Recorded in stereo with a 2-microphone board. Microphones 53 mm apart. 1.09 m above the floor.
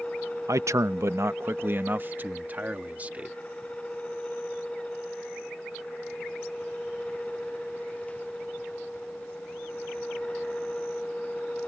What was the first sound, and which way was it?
A man speaking, 75° right (ahead or behind).